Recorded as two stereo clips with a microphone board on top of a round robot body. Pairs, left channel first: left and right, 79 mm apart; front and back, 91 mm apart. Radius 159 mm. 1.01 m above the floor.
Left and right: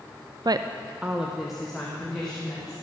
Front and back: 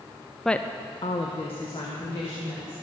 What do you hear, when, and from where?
0.5 s a woman speaking: 90° right, 0.5 m; by 2.7 s 5° left, 2.5 m